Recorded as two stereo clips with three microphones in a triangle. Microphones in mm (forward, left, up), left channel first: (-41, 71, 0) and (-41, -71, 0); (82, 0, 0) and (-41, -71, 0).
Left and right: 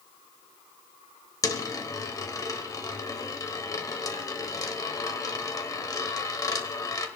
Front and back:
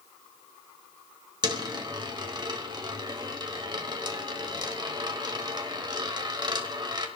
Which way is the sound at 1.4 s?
155° left.